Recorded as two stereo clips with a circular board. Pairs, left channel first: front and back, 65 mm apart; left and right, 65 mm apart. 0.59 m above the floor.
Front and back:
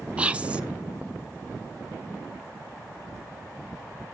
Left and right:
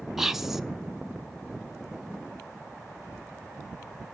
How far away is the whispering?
About 0.5 m.